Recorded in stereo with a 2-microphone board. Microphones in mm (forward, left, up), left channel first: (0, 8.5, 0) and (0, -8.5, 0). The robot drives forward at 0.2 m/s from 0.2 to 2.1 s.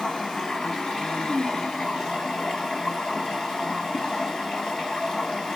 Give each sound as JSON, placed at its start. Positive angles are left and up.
{"t": 0.0, "sound": "running water", "side_deg": 70, "distance_m": 1.9}